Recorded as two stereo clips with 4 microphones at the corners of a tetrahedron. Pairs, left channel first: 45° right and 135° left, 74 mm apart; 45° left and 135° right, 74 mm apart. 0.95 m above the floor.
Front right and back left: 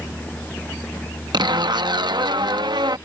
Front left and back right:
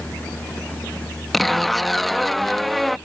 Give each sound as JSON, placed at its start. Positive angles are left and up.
{"t": 1.3, "sound": "a zipper", "azimuth_deg": 135}